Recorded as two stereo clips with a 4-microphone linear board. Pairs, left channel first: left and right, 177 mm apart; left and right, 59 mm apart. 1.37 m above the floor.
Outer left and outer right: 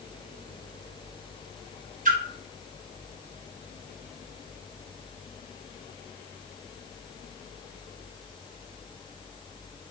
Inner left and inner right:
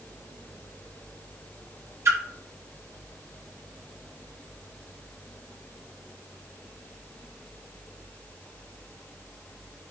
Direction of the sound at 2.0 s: 50° right (ahead or behind).